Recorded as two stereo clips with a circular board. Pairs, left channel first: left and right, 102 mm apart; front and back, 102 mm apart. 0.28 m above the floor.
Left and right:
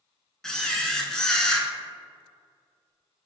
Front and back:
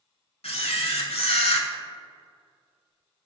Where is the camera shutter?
5° left, 0.6 m.